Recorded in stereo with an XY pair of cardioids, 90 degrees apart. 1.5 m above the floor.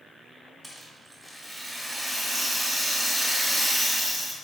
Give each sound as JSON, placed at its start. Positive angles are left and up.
{"t": 0.6, "sound": "a rattle", "azimuth_deg": -10, "distance_m": 1.2}